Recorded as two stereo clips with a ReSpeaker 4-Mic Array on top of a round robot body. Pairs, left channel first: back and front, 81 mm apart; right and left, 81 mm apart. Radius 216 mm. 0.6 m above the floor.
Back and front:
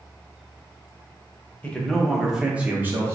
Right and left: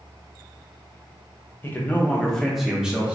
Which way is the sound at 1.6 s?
120° right.